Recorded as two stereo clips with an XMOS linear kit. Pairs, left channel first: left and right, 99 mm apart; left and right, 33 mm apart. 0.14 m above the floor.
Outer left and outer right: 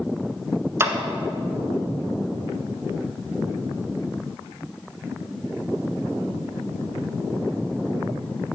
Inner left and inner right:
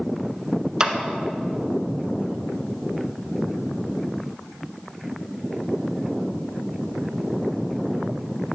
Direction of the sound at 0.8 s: 25° right (ahead or behind).